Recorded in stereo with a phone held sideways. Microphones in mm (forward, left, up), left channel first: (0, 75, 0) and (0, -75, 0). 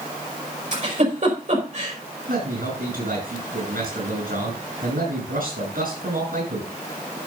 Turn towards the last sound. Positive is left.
turn(degrees=-85)